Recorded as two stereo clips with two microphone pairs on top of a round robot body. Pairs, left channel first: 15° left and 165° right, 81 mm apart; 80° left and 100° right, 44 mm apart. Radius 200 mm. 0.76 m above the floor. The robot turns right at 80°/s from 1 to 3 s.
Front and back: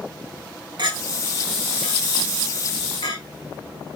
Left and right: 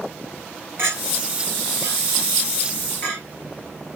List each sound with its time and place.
0.8 s a clink: 135° right, 5 m; by 3.2 s 25° left, 5 m